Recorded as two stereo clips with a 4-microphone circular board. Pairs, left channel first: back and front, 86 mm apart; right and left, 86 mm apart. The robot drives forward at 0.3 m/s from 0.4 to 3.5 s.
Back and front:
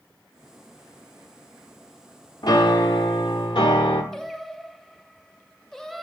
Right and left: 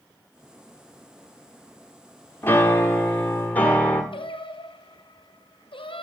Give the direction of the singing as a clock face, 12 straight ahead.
3 o'clock.